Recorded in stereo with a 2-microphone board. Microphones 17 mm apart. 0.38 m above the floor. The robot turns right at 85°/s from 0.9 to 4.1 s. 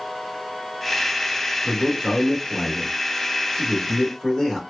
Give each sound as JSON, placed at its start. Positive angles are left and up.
{"t": 1.6, "sound": "a man speaking", "side_deg": -10, "distance_m": 1.0}